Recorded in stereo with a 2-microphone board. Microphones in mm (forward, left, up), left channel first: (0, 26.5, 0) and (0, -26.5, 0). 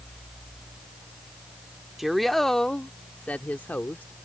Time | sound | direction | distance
2.0 | a woman speaking | 5° right (ahead or behind) | ?